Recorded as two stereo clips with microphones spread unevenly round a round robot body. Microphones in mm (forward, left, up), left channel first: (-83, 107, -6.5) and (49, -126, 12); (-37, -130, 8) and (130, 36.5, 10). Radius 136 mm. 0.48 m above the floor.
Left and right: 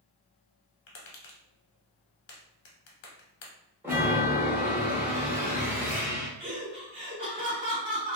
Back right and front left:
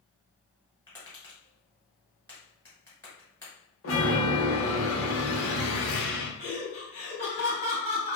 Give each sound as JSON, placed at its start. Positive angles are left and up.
{"t": 0.9, "sound": "tapping", "azimuth_deg": 140, "distance_m": 1.1}
{"t": 3.8, "sound": "a chime", "azimuth_deg": -145, "distance_m": 0.8}
{"t": 6.4, "sound": "laughter", "azimuth_deg": -115, "distance_m": 0.8}